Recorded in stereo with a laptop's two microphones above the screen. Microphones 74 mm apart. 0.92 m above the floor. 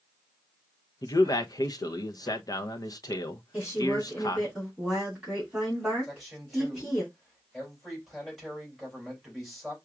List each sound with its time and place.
1.0 s a man speaking: 55° left (ahead or behind), 0.6 m
3.5 s a woman speaking: 10° right (ahead or behind), 3 m
6.0 s a man speaking: 5° right (ahead or behind), 3 m